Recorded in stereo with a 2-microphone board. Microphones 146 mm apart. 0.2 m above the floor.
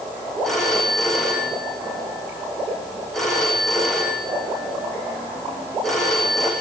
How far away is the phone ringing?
About 10 m.